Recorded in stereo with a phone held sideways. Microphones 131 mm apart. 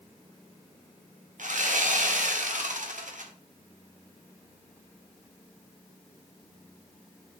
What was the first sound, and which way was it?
Sawing, 70° right (ahead or behind).